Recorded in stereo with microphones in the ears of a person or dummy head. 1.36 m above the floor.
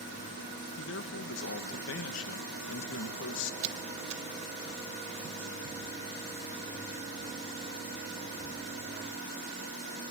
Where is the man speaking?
70° left (ahead or behind), 1.5 m.